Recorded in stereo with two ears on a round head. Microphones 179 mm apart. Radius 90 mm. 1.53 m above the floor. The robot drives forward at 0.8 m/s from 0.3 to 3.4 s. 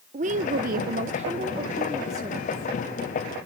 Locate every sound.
0.1 s a woman speaking: 40° right (ahead or behind), 0.7 m; by 2.7 s 15° right (ahead or behind), 1.7 m